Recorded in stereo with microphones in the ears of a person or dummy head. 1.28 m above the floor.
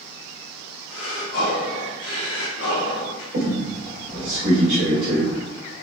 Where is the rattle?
I don't hear a rattle.